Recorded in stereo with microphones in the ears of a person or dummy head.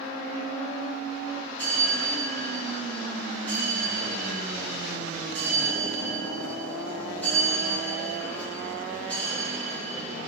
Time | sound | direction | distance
1.6 | a bell | 10° left (ahead or behind) | 0.6 m